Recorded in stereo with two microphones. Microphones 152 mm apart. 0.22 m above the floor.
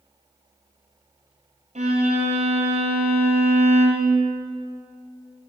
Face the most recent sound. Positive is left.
turn(degrees=-50)  # may be behind; listen again after turning